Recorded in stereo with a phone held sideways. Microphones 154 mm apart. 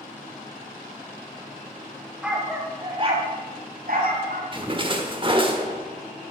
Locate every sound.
2.2 s a dog barking: 5° right (ahead or behind), 2.5 m; by 4.4 s 75° right (ahead or behind), 3.5 m
4.5 s a splash: 35° right (ahead or behind), 1.3 m